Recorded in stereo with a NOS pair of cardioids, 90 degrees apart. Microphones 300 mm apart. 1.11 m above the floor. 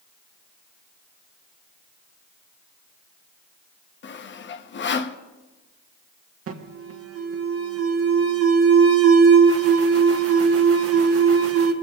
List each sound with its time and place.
4.0 s sawing: 40° left, 0.7 m
6.5 s an alarm: 50° right, 1.4 m